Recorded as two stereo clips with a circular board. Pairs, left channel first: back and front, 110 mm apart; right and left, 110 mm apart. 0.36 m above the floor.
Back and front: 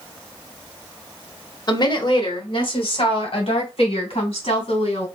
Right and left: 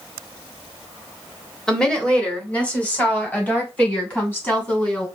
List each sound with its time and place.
1.7 s a woman speaking: 170° right, 1.1 m; by 5.1 s 160° right, 2.5 m